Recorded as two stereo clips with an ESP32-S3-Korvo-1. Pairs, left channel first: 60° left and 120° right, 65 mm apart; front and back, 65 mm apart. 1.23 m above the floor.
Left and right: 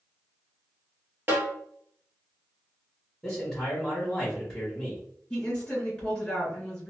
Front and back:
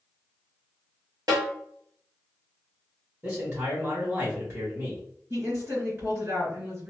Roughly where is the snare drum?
Behind.